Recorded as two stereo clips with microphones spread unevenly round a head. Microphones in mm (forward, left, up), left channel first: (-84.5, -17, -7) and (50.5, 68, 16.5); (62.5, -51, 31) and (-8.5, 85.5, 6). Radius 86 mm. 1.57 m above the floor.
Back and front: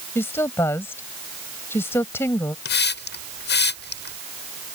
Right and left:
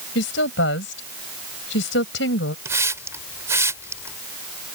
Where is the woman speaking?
70° right.